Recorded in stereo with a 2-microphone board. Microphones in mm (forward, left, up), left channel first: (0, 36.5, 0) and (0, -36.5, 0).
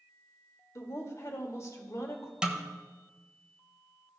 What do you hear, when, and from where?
0.8 s a woman speaking: 45° left (ahead or behind), 1.6 m
2.4 s a snare drum: 10° right (ahead or behind), 1.1 m